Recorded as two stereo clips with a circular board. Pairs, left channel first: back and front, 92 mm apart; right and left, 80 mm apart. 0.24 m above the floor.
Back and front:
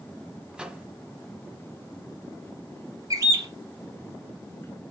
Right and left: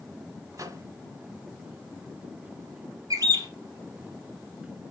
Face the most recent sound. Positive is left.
turn(degrees=50)